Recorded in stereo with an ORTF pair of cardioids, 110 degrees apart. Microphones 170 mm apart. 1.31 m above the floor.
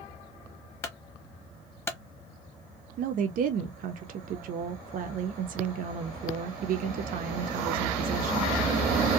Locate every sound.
0.8 s a clunk: 15° left, 0.9 m
3.0 s a woman speaking: 55° right, 0.5 m